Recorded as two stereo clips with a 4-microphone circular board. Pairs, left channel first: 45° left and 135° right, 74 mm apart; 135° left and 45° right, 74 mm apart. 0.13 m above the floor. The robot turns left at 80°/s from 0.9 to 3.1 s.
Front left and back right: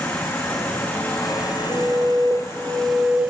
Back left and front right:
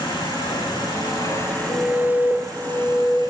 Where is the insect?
115° left, 6 m; by 3.3 s 60° right, 6 m.